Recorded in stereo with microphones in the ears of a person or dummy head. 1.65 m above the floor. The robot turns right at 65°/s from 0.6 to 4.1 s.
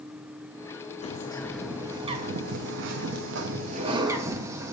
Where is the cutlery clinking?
I don't hear cutlery clinking.